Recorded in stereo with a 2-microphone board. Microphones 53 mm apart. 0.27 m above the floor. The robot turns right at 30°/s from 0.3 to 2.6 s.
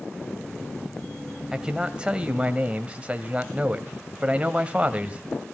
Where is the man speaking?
15° right (ahead or behind), 1.0 m; by 5.2 s 25° right (ahead or behind), 1.0 m.